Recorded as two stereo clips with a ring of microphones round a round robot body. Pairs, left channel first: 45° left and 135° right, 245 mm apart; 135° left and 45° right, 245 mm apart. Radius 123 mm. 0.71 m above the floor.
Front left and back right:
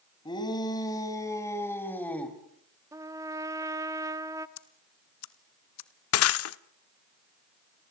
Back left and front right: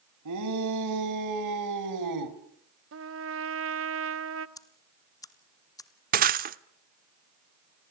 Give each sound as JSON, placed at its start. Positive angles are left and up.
{"t": 0.2, "sound": "a shout", "azimuth_deg": -30, "distance_m": 4.5}
{"t": 2.9, "sound": "a trumpet", "azimuth_deg": -60, "distance_m": 1.2}
{"t": 4.6, "sound": "ticking", "azimuth_deg": 60, "distance_m": 1.4}
{"t": 6.1, "sound": "breaking glass", "azimuth_deg": 10, "distance_m": 1.0}